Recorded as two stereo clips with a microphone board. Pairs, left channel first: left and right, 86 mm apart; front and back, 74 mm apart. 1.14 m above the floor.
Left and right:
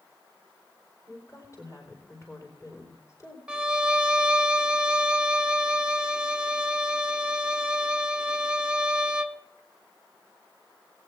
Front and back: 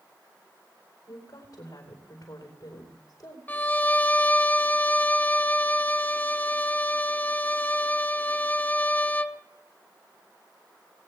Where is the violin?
30° right, 0.6 m.